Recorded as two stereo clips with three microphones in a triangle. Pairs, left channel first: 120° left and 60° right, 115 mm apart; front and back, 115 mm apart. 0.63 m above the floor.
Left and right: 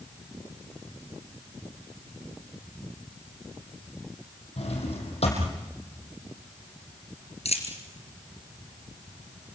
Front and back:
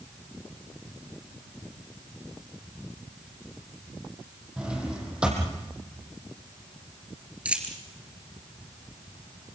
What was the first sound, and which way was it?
A drawer, 100° left.